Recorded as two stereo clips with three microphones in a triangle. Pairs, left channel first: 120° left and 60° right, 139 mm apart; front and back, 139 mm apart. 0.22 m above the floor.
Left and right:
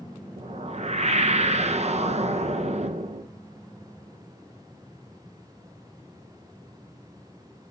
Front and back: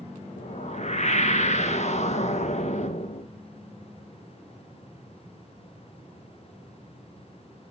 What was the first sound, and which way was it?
A whoosh, 30° right.